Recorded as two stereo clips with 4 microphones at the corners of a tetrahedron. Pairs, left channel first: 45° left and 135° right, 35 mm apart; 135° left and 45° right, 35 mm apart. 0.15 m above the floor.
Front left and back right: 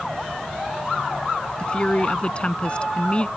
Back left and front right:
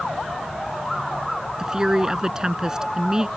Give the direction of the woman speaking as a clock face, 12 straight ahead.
12 o'clock.